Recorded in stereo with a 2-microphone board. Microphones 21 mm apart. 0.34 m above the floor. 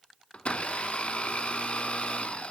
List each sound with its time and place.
0.3 s a blender: 60° left (ahead or behind), 0.5 m